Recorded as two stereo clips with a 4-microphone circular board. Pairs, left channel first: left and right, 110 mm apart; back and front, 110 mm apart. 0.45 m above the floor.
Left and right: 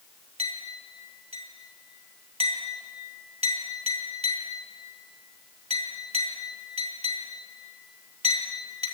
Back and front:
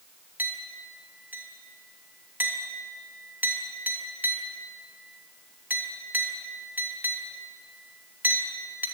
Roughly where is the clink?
Right.